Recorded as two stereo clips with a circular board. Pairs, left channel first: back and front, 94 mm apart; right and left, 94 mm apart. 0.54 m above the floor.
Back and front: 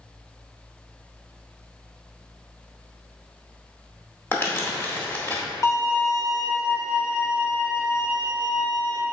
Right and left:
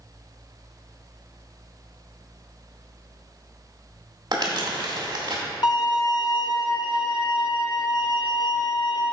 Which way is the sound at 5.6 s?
130° right.